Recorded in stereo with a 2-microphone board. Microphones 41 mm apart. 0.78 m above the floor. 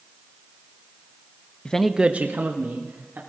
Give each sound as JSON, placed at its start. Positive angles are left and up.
{"t": 1.6, "sound": "a man speaking", "side_deg": 25, "distance_m": 0.6}